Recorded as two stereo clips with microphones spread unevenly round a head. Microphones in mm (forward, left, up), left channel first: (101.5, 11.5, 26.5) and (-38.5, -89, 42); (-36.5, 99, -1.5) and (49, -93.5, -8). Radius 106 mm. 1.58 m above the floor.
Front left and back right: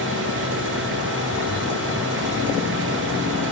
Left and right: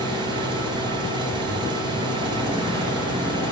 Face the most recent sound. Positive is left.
turn(degrees=-135)